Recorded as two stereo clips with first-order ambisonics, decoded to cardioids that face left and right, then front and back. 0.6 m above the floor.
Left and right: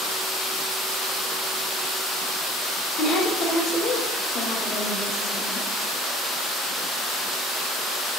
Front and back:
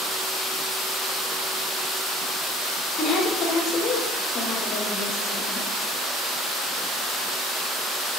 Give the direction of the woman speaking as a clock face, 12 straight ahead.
10 o'clock.